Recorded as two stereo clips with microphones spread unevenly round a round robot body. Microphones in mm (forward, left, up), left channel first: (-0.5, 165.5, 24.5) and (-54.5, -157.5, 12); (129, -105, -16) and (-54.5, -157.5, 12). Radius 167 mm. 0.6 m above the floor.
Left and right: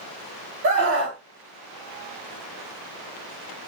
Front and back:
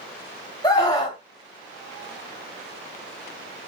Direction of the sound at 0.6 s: 45° right.